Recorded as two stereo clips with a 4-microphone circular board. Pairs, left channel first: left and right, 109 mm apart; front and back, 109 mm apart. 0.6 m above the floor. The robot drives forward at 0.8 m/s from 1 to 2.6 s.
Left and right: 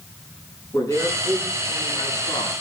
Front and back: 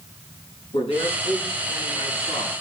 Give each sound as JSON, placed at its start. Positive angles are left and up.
{"t": 0.7, "sound": "a man speaking", "azimuth_deg": 30, "distance_m": 7.0}